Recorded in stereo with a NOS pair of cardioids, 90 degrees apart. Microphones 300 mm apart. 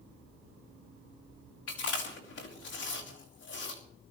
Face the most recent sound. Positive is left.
turn(degrees=55)